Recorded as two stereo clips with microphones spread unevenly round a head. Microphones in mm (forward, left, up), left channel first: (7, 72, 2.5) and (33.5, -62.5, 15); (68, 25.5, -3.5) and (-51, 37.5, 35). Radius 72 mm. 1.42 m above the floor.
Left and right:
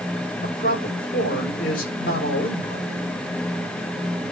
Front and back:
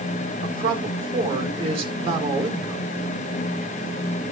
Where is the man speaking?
130° left, 4.5 m.